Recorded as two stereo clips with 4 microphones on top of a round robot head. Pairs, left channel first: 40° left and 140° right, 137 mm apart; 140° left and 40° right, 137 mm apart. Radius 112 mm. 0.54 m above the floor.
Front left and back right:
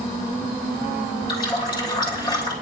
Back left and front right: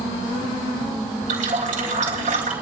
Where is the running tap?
15° right, 5.5 m.